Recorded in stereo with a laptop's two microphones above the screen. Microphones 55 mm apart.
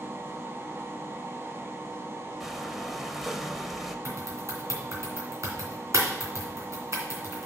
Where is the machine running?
45° right (ahead or behind), 0.8 m.